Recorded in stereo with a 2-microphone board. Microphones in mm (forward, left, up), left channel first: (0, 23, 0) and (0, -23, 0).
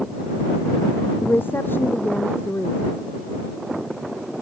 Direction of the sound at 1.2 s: 50° left (ahead or behind).